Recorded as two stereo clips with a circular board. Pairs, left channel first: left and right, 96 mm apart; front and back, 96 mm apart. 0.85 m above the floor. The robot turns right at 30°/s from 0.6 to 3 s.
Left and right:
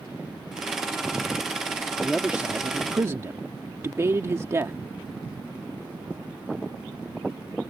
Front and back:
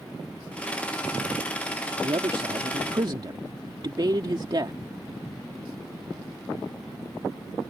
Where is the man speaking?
175° right; by 4.8 s 145° right.